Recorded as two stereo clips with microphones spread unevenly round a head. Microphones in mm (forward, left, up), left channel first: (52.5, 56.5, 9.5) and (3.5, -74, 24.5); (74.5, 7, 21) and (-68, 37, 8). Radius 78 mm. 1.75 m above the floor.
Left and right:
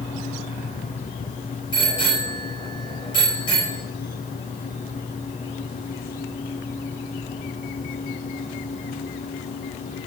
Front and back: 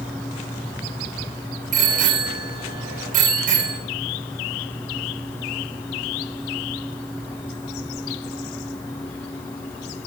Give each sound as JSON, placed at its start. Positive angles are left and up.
{"t": 1.7, "sound": "a bicycle bell", "azimuth_deg": 135, "distance_m": 6.0}